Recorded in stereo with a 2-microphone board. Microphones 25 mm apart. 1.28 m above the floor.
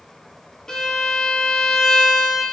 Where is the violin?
30° left (ahead or behind), 0.5 m.